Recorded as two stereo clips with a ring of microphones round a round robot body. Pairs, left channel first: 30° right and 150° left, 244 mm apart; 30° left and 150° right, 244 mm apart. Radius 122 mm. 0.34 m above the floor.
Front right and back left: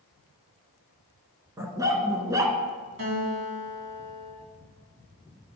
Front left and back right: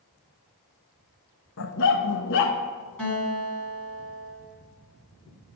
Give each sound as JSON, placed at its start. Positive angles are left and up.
{"t": 1.6, "sound": "a dog barking", "azimuth_deg": 70, "distance_m": 0.9}
{"t": 3.0, "sound": "a guitar", "azimuth_deg": 115, "distance_m": 3.0}